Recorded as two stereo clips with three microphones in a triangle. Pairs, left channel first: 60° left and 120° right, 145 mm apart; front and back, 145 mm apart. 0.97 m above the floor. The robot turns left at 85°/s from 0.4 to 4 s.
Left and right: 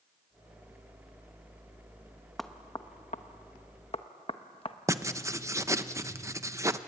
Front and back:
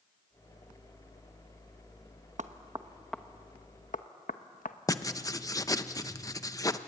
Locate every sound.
2.4 s knocking: 150° left, 1.0 m; by 4.8 s 15° left, 1.0 m
4.9 s writing: 55° right, 0.8 m